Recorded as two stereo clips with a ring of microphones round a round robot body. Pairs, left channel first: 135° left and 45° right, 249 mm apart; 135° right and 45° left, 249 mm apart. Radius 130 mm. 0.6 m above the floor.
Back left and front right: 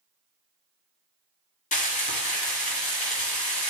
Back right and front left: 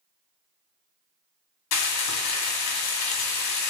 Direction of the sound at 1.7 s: 165° right.